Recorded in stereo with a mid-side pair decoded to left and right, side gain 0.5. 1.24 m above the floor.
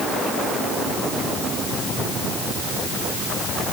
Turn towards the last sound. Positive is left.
No sound to turn to.